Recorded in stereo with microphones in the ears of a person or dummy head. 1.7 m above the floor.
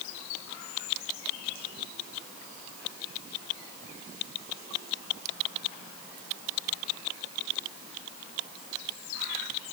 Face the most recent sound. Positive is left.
No sound to turn to.